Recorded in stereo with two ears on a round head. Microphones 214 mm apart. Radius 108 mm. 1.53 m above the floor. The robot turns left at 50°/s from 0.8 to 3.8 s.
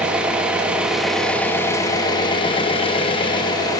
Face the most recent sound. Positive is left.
turn(degrees=15)  # may be behind; listen again after turning